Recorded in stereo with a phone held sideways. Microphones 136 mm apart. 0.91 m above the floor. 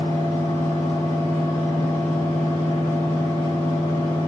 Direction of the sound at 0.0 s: 55° left (ahead or behind).